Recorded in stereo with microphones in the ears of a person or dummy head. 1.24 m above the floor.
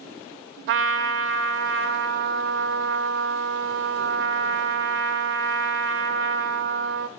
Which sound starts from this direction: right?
A trumpet, at 0.7 s.